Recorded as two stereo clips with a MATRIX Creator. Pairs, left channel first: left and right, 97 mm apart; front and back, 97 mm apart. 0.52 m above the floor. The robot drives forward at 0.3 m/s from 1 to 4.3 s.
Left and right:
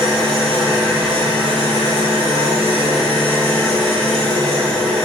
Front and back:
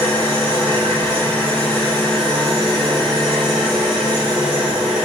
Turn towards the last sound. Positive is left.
turn(degrees=-100)